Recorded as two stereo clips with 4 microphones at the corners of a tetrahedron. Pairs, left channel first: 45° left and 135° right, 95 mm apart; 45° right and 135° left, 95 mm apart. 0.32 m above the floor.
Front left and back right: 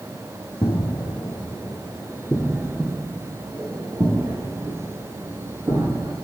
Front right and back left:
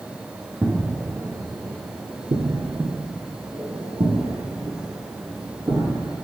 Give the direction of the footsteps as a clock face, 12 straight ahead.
10 o'clock.